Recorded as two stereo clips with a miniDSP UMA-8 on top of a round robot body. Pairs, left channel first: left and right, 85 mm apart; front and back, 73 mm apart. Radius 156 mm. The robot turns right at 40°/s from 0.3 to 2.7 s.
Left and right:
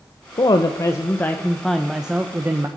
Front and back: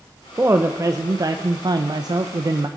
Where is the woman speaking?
120° left, 0.8 m; by 2.7 s 145° right, 0.8 m.